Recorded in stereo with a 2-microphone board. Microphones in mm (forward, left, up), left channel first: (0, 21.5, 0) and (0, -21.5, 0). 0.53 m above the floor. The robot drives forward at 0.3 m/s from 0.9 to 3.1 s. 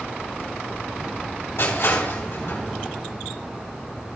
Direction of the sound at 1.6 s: 70° left (ahead or behind).